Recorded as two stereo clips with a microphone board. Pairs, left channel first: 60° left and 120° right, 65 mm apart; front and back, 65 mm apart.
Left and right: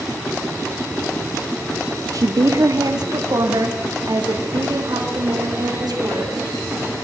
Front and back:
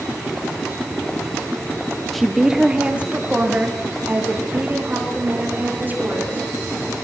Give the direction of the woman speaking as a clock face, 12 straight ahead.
3 o'clock.